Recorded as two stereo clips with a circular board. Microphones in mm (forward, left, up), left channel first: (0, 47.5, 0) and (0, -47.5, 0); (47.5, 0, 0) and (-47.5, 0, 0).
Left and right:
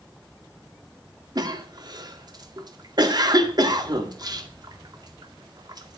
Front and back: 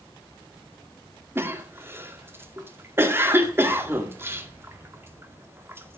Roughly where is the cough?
Behind right.